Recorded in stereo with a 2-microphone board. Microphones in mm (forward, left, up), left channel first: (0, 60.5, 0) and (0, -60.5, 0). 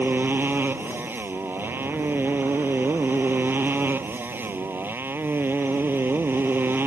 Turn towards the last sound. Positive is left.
turn(degrees=-15)  # may be behind; listen again after turning